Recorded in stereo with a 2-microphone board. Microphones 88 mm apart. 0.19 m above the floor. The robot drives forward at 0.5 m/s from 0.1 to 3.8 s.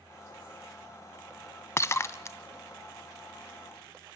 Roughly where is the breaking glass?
Left.